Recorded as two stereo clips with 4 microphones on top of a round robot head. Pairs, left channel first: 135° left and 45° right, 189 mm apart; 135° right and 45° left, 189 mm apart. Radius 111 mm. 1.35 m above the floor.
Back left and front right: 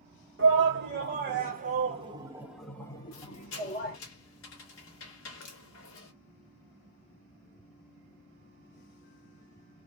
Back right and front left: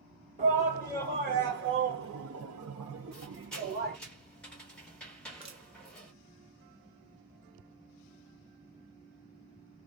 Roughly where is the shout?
Ahead.